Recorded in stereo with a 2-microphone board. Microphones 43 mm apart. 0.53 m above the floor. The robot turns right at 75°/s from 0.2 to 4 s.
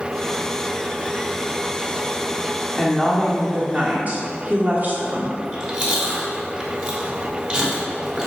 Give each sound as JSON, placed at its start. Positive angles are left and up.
{"t": 2.8, "sound": "a woman speaking", "azimuth_deg": 175, "distance_m": 1.3}
{"t": 5.4, "sound": "chewing", "side_deg": -25, "distance_m": 1.5}